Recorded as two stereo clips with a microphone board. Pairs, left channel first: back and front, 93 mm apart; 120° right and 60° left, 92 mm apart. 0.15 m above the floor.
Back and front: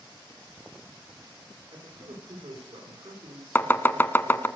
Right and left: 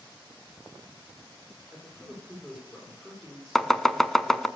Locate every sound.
1.7 s a man speaking: 25° right, 6.5 m
3.5 s chopping: 160° left, 0.5 m